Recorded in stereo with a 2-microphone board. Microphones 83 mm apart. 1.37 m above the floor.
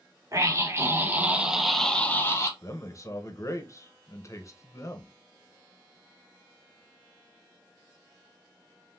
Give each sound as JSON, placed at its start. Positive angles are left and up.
{"t": 0.3, "sound": "a scream", "side_deg": -40, "distance_m": 1.4}
{"t": 2.6, "sound": "a man speaking", "side_deg": 40, "distance_m": 0.8}